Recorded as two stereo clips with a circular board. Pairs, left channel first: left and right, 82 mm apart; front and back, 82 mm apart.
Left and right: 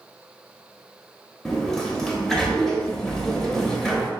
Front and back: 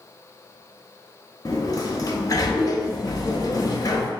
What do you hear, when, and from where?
1.4 s a sliding door: 5° left, 0.6 m